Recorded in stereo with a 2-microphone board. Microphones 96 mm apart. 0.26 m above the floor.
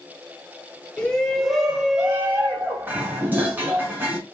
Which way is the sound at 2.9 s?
20° right (ahead or behind).